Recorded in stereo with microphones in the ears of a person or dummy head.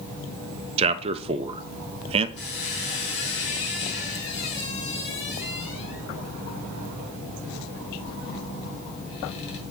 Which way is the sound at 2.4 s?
70° left (ahead or behind).